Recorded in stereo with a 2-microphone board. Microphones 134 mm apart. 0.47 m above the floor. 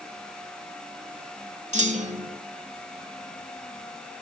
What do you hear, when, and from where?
1.7 s a clunk: 60° right (ahead or behind), 1.2 m